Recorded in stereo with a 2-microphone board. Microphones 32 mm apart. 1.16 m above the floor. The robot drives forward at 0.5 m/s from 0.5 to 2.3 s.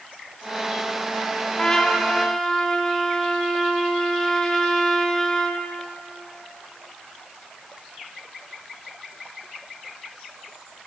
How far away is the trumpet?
About 0.6 m.